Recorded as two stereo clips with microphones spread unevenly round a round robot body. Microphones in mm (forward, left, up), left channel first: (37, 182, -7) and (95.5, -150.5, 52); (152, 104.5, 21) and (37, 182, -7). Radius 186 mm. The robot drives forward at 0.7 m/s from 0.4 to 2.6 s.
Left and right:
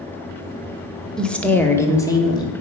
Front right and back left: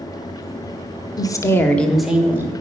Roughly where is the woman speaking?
Ahead left.